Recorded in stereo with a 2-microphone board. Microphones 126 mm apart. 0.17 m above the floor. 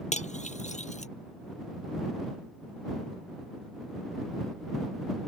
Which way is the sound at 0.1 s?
70° left (ahead or behind).